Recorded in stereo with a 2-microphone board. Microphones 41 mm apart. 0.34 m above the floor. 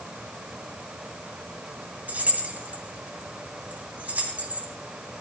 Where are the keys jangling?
45° right (ahead or behind), 1.7 m.